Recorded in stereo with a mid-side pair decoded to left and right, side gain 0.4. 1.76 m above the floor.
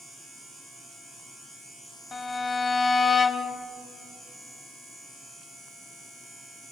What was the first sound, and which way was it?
A violin, 40° left.